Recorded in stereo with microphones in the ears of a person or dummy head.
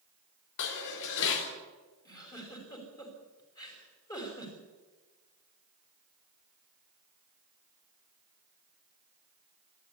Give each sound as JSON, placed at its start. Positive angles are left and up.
{"t": 0.6, "sound": "dishes clattering", "side_deg": 65, "distance_m": 3.5}
{"t": 2.0, "sound": "a giggle", "side_deg": 20, "distance_m": 5.5}